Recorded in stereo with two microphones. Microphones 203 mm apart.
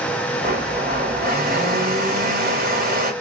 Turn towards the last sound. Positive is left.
turn(degrees=-45)  # may be behind; listen again after turning